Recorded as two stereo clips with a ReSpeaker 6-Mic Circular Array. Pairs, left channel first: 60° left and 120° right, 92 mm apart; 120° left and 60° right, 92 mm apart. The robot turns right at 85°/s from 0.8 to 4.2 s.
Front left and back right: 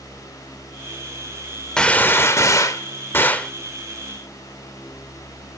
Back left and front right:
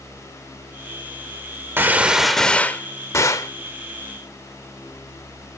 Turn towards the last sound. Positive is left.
turn(degrees=-165)